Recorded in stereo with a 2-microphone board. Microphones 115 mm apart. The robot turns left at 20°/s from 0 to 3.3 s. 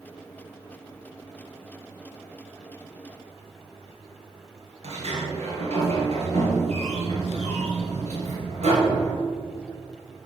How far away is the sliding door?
About 2.5 m.